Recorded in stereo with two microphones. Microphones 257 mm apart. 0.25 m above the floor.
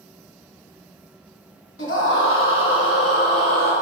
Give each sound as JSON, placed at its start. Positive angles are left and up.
{"t": 1.8, "sound": "a scream", "side_deg": 55, "distance_m": 2.0}